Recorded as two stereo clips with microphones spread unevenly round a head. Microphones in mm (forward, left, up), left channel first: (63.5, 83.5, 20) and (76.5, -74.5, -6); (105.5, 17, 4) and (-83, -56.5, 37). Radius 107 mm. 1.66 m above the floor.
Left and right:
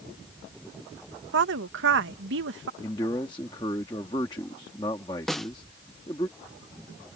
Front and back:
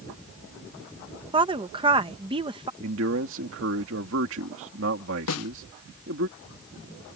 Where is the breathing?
No breathing in this recording.